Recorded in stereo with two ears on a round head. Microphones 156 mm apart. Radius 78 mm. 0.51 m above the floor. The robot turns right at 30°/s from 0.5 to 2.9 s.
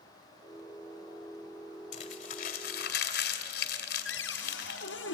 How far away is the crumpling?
About 2.5 m.